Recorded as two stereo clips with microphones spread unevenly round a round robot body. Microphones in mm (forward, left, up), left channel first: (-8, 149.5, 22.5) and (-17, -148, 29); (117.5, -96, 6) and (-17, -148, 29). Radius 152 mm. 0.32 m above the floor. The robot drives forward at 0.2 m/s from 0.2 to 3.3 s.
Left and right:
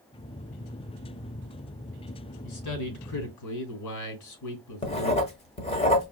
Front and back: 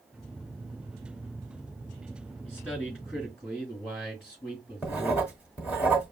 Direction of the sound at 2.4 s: 100° left.